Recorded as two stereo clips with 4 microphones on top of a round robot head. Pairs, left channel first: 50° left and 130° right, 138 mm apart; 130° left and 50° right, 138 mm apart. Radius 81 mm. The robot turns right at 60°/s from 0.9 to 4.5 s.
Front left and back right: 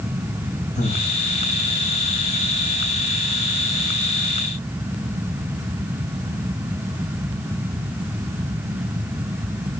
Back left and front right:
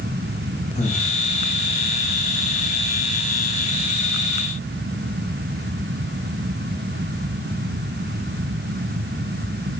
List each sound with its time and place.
0.8 s breathing: 90° left, 6 m; by 1.1 s 105° left, 6 m